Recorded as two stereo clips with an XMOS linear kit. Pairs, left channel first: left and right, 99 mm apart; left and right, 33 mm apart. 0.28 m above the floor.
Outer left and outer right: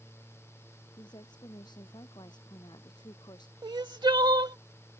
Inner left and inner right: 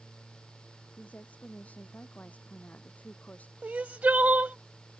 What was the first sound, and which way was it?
A woman speaking, 45° left (ahead or behind).